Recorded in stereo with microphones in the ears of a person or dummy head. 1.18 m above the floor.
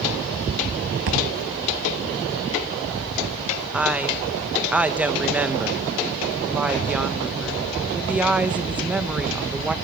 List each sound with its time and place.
1.1 s a thud: 70° right (ahead or behind), 3 m
3.7 s a woman speaking: 5° right (ahead or behind), 1.4 m